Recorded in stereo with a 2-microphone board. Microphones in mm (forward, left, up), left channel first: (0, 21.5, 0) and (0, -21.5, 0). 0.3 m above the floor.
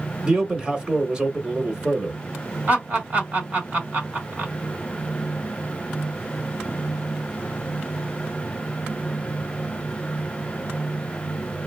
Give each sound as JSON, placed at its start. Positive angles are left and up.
{"t": 0.2, "sound": "a man speaking", "side_deg": -20, "distance_m": 0.9}
{"t": 2.7, "sound": "laughter", "side_deg": -40, "distance_m": 1.9}